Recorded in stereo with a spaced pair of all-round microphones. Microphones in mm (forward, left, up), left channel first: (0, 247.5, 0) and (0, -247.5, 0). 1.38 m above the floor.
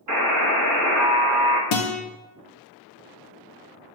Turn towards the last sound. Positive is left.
turn(degrees=65)  # may be behind; listen again after turning